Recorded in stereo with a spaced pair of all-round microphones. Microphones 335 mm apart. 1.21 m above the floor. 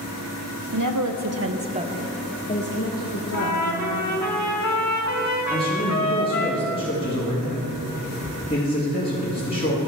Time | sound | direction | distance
0.7 | a woman speaking | 70° right (ahead or behind) | 0.8 m
3.3 | a trumpet | 55° left (ahead or behind) | 1.2 m
5.5 | a man speaking | 30° left (ahead or behind) | 2 m